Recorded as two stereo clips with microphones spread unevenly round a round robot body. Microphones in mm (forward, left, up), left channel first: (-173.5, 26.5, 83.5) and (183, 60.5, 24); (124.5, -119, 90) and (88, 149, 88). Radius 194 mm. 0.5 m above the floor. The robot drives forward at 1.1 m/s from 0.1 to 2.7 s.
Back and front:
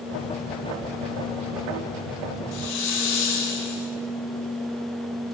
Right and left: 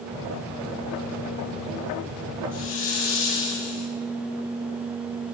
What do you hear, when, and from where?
2.5 s a hiss: 125° right, 5 m